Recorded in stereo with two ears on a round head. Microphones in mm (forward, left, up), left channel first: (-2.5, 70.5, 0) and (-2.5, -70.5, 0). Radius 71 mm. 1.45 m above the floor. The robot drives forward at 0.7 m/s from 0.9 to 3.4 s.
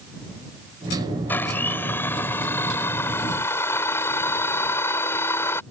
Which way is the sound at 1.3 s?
15° left (ahead or behind).